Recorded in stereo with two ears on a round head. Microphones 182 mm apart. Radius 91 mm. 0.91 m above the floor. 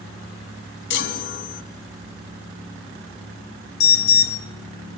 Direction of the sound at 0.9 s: 60° left (ahead or behind).